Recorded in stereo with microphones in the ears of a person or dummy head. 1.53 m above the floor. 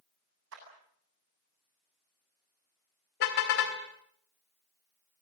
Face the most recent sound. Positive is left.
turn(degrees=50)  # may be behind; listen again after turning